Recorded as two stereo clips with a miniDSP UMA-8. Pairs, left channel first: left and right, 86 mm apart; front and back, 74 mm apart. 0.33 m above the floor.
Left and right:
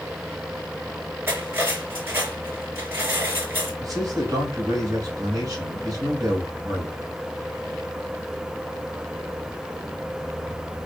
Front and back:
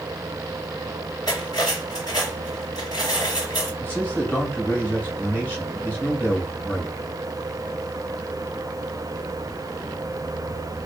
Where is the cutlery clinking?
25° right, 2.5 m.